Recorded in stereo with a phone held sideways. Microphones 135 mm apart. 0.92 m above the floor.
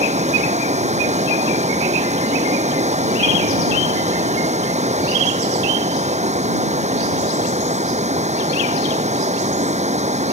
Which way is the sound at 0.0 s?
60° right (ahead or behind).